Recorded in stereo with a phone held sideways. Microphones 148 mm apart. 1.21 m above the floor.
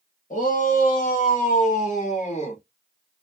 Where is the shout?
65° left (ahead or behind), 1.4 m; by 2.6 s 45° left (ahead or behind), 1.6 m.